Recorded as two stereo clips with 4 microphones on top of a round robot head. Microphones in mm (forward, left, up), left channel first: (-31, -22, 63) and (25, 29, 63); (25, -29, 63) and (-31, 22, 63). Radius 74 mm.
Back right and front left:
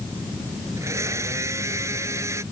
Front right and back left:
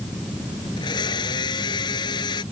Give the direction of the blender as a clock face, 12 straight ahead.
12 o'clock.